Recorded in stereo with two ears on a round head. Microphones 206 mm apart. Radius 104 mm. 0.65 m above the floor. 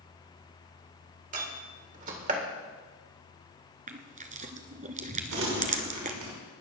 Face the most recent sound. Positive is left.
turn(degrees=-80)